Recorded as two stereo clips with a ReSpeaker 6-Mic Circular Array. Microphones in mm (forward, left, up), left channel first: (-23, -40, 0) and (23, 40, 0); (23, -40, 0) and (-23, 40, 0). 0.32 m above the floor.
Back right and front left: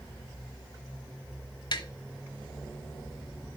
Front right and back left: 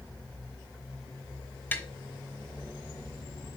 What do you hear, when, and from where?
1.7 s tapping: 125° right, 0.9 m